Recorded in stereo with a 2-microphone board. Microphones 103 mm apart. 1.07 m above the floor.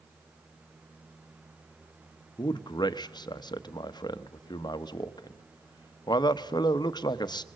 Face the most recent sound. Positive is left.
turn(degrees=45)  # may be behind; listen again after turning